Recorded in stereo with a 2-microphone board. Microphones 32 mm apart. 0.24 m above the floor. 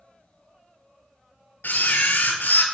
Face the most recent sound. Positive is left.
turn(degrees=75)  # may be behind; listen again after turning